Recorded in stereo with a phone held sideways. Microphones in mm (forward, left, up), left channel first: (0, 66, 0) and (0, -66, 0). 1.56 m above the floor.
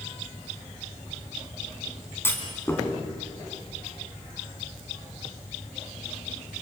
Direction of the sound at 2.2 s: 15° left (ahead or behind).